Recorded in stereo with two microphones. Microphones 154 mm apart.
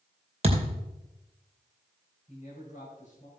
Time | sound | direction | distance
0.4 | a thud | 45° right (ahead or behind) | 2.5 m
2.3 | a man speaking | 50° left (ahead or behind) | 3.5 m